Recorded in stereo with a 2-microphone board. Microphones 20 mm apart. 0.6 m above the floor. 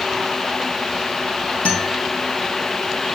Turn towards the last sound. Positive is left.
turn(degrees=70)  # may be behind; listen again after turning